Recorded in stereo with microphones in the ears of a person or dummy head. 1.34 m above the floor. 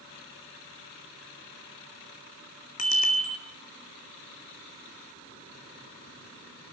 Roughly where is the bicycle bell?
Left.